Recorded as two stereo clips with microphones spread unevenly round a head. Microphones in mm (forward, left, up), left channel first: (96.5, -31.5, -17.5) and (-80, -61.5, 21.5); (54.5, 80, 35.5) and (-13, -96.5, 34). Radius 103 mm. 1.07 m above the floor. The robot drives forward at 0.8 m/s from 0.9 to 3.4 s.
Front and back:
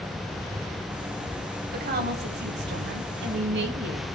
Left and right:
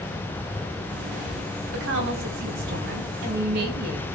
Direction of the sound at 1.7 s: 135° right.